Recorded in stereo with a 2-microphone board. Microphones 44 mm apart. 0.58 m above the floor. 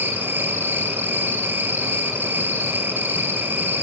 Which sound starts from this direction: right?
An insect, at 0.0 s.